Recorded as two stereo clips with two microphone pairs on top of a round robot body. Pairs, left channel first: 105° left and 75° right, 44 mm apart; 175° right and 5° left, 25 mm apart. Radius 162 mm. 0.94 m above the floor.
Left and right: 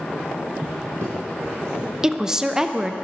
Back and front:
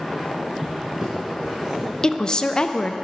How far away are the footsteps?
About 1.2 m.